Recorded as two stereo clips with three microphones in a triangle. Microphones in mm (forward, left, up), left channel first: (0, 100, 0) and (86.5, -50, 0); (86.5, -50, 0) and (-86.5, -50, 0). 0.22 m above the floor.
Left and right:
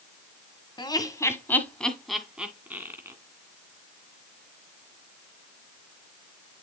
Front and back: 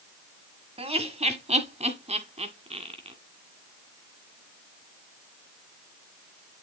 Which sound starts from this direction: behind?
Laughter, at 0.8 s.